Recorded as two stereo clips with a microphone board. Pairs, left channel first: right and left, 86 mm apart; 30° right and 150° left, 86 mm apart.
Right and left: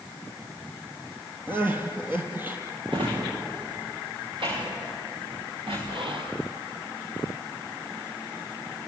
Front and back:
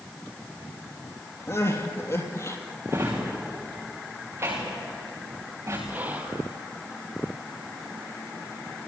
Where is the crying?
25° left, 3 m.